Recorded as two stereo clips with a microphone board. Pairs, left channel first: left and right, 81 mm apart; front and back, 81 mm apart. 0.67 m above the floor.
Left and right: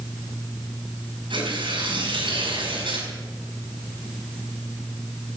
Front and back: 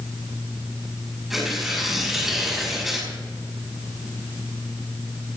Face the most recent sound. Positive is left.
turn(degrees=-95)